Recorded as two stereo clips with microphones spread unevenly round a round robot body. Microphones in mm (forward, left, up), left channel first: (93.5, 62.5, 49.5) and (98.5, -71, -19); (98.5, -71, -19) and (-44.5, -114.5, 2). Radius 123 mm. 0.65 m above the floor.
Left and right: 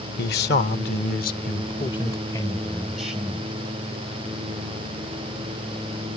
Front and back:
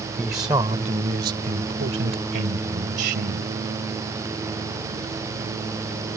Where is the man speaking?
110° left; by 3.5 s 160° right.